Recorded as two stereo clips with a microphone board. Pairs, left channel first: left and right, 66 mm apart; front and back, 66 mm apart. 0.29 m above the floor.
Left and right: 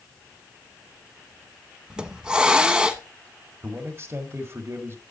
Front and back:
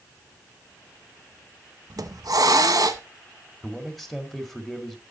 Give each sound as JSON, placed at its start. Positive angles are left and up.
{"t": 1.9, "sound": "a hiss", "azimuth_deg": -165, "distance_m": 0.6}
{"t": 3.6, "sound": "a man speaking", "azimuth_deg": -85, "distance_m": 1.5}